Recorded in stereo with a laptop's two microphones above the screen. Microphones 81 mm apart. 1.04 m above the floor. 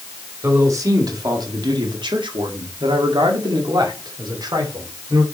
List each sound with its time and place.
0.4 s a man speaking: 35° right (ahead or behind), 2 m; by 5.2 s 50° right (ahead or behind), 3 m